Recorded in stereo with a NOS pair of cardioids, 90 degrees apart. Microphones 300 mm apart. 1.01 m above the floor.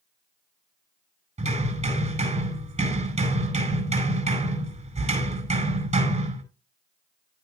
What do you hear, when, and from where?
1.4 s hammering: 20° right, 9.5 m